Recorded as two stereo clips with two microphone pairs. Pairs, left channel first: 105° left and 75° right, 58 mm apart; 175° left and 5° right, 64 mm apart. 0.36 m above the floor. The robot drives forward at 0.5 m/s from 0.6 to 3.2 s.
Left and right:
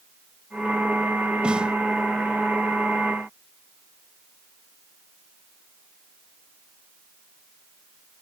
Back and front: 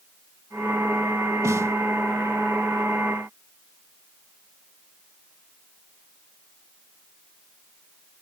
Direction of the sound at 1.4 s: 5° right.